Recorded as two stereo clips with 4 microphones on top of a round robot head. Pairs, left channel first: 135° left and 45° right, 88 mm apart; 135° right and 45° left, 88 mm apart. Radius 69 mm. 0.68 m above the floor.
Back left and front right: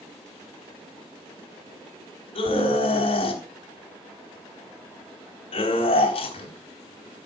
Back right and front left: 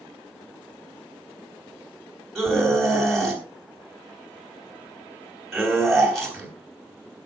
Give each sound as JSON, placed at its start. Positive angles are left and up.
{"t": 2.4, "sound": "a scream", "azimuth_deg": 135, "distance_m": 4.0}